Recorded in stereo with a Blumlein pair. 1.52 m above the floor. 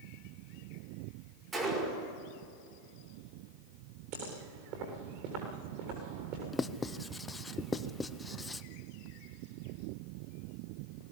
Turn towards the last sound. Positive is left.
turn(degrees=10)